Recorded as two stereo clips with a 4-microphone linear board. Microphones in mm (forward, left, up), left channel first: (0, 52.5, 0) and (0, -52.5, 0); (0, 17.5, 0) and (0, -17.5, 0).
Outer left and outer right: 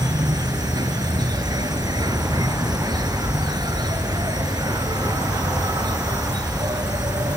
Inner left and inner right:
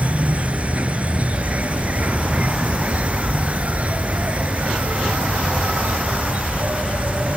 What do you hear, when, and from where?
0.0 s an insect: 40° right (ahead or behind)